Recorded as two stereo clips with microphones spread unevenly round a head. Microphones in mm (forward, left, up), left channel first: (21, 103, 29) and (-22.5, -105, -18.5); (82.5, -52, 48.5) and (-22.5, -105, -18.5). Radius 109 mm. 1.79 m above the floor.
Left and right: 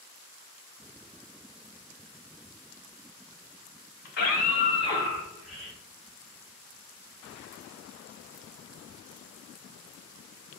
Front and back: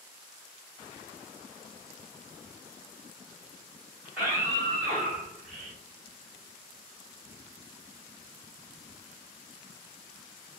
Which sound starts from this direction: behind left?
A scream, at 4.0 s.